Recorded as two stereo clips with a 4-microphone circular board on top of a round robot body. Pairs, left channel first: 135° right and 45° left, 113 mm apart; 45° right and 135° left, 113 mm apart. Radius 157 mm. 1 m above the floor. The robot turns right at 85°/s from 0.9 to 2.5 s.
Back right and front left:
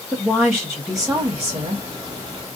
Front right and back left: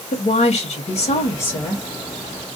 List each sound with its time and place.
0.1 s a woman speaking: 50° right, 1.2 m; by 1.9 s 30° left, 1.2 m